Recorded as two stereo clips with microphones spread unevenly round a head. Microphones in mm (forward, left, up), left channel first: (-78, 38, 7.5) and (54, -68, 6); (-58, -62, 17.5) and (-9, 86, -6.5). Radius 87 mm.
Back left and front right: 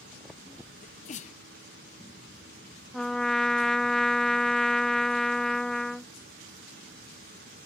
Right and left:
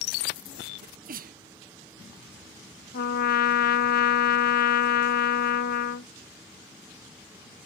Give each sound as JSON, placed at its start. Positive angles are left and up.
{"t": 0.8, "sound": "a sneeze", "azimuth_deg": 90}
{"t": 2.9, "sound": "a trumpet", "azimuth_deg": -130}